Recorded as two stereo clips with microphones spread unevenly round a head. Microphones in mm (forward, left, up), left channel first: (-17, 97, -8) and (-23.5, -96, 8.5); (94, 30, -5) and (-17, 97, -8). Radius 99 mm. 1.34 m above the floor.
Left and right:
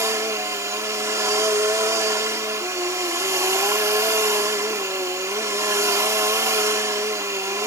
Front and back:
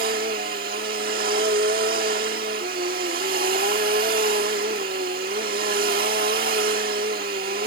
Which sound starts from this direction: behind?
A machine running, at 0.0 s.